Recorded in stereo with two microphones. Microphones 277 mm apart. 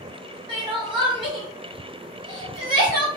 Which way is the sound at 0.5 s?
15° right (ahead or behind).